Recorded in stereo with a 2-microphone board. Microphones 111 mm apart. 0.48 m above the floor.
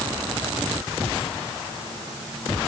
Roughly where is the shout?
I don't hear a shout.